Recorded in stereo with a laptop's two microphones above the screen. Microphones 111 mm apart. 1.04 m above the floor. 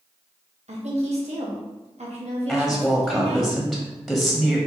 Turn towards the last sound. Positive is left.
turn(degrees=0)  # may be behind; listen again after turning